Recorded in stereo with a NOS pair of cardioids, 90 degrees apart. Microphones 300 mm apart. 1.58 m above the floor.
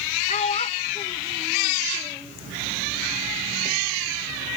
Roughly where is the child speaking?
Ahead left.